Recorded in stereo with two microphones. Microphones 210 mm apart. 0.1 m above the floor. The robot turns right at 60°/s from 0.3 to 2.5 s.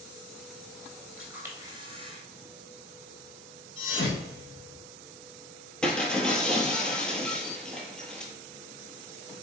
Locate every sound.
1.2 s a camera shutter: 170° right, 0.9 m; by 2.2 s 105° right, 0.9 m
3.8 s a thud: 65° left (ahead or behind), 1.6 m
5.8 s breaking glass: 5° left (ahead or behind), 0.7 m